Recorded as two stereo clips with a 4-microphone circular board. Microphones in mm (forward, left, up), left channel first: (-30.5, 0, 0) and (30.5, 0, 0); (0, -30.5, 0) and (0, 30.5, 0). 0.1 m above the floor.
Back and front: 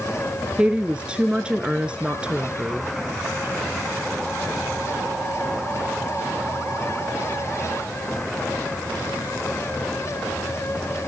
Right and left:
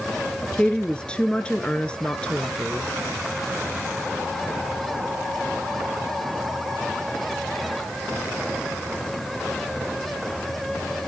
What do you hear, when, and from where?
0.6 s a woman speaking: 45° right, 1.1 m